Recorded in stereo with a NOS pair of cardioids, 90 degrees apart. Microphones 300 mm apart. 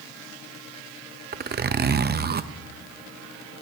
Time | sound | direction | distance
1.3 | a zipper | 35° right | 0.7 m